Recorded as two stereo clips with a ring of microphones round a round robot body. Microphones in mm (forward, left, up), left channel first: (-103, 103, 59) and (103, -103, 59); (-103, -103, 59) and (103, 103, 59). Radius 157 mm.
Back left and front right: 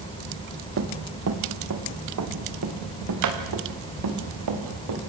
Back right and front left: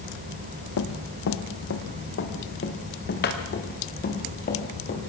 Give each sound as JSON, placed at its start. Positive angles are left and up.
{"t": 0.8, "sound": "running footsteps", "azimuth_deg": -95, "distance_m": 2.0}